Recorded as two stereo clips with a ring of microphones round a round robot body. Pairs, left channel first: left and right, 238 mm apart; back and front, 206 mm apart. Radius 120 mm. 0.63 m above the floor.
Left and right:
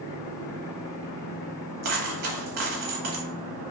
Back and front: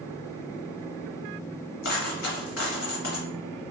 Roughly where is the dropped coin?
Behind right.